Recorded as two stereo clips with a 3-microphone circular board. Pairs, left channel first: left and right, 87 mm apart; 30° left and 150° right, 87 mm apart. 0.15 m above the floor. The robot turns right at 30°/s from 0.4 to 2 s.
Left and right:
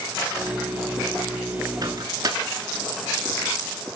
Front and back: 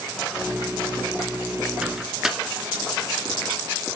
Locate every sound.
1.8 s a microwave: 70° right, 1.5 m; by 2.4 s 65° right, 1.5 m